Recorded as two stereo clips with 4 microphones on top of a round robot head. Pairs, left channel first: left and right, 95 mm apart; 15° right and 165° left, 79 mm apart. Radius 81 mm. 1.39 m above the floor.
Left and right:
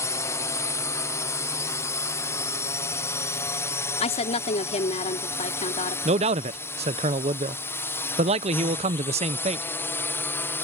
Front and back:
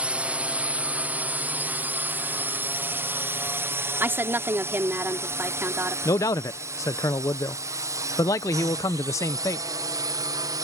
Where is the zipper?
I don't hear a zipper.